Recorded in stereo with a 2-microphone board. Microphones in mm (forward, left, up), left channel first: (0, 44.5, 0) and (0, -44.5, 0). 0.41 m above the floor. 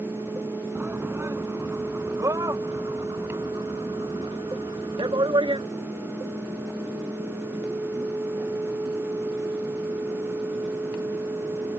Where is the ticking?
No ticking in this recording.